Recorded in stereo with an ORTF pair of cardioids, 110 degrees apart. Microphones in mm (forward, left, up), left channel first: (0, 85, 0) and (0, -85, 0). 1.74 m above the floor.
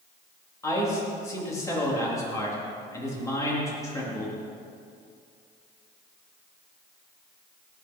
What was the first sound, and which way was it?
A man speaking, 20° left.